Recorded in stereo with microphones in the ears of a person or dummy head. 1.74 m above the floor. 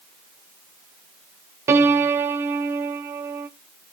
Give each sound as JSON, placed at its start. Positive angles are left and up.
{"t": 1.7, "sound": "a piano", "side_deg": -20, "distance_m": 0.7}